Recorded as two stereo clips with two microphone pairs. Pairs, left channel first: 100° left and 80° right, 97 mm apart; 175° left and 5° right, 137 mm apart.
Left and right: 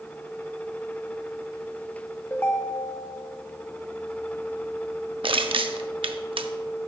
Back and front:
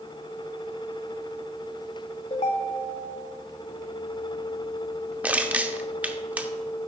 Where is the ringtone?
165° left, 0.8 m.